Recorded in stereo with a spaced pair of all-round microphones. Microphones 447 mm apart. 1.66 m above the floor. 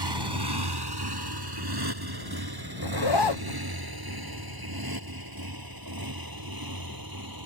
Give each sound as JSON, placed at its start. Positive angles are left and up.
{"t": 0.0, "sound": "a motorcycle", "side_deg": -70}
{"t": 2.8, "sound": "a zipper", "side_deg": 70}